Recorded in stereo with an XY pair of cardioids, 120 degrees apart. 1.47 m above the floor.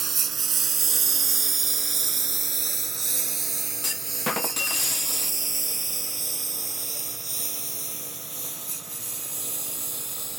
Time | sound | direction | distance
0.0 | a lawn mower | 40° right | ?
3.8 | a clunk | 20° left | ?